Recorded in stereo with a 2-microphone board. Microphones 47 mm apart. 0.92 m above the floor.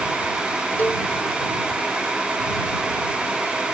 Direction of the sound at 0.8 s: 40° left (ahead or behind).